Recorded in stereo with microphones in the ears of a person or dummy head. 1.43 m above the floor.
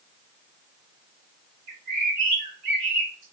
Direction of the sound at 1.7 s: 40° right (ahead or behind).